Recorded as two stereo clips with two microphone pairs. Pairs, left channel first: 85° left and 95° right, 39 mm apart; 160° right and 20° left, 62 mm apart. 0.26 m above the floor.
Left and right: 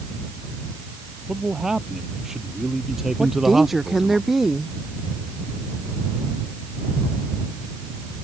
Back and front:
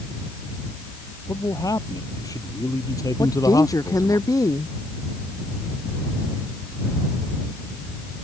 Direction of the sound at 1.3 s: 170° right.